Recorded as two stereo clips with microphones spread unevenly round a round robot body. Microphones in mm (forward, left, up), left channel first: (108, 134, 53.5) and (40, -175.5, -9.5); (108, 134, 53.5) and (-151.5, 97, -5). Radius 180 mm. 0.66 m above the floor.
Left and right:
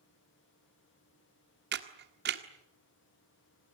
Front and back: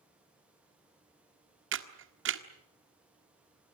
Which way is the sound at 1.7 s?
150° right.